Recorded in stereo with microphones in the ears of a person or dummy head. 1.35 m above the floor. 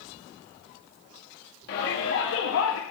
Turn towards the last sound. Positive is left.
turn(degrees=80)